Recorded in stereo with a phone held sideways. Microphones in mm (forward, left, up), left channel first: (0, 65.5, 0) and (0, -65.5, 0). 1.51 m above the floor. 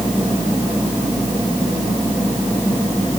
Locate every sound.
Only background noise.